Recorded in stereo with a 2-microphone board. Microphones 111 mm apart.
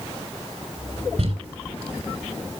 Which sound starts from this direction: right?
Crumpling, at 1.2 s.